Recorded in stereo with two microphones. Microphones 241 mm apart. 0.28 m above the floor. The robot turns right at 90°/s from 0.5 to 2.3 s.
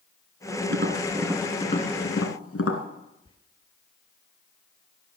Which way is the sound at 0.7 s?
60° right (ahead or behind).